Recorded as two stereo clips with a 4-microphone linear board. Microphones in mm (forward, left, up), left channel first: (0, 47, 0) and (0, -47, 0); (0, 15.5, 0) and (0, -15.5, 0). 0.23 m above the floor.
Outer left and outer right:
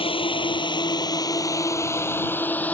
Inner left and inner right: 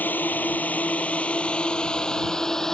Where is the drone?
70° left (ahead or behind); by 2.7 s 15° left (ahead or behind).